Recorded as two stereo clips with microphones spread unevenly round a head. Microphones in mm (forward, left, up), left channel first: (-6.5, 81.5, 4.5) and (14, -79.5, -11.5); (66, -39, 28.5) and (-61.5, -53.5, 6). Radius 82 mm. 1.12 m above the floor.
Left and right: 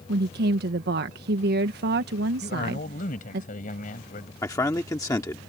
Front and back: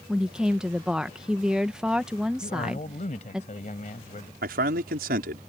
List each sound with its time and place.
0.1 s a woman speaking: 95° right
2.4 s a man speaking: 55° left
4.4 s a man speaking: 170° left